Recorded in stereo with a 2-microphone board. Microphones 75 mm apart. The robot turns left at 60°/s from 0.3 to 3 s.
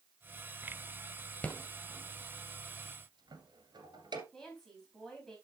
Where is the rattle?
20° left (ahead or behind), 1.7 m; by 4.2 s 70° right (ahead or behind), 1.7 m.